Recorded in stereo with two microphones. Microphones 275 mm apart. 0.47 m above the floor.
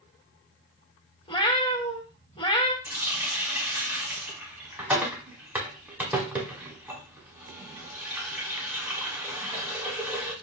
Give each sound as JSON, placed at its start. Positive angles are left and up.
{"t": 1.3, "sound": "a cat meowing", "side_deg": 20, "distance_m": 0.5}
{"t": 2.9, "sound": "a running tap", "side_deg": -5, "distance_m": 1.0}